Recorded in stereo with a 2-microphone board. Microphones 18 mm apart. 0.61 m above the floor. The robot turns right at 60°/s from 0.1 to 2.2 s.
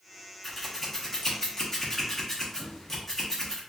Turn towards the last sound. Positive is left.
turn(degrees=20)  # may be behind; listen again after turning